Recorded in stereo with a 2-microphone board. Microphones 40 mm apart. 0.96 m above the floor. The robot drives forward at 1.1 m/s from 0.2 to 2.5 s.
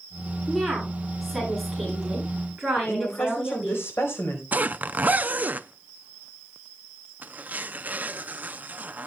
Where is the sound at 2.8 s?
85° left, 4.5 m.